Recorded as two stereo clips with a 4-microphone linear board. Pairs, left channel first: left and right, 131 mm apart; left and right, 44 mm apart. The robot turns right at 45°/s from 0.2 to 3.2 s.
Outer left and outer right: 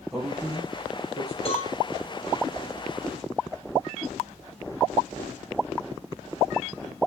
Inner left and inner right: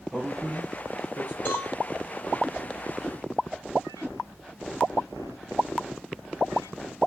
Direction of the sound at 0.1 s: Centre (ahead or behind).